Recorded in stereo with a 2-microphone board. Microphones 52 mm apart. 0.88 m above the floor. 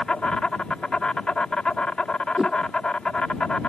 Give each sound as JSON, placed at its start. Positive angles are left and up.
{"t": 0.0, "sound": "an insect", "side_deg": 15}
{"t": 2.4, "sound": "a whoosh", "side_deg": -15}